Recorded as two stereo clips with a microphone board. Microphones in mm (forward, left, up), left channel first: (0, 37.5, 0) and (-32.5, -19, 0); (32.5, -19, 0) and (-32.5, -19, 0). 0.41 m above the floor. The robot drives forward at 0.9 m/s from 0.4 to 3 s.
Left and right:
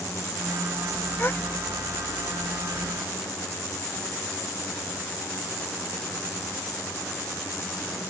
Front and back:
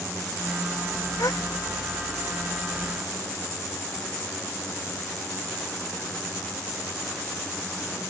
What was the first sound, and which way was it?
A gasp, 5° left.